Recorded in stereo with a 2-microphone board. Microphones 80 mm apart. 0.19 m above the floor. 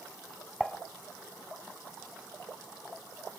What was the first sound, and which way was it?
Dishes clattering, centre (ahead or behind).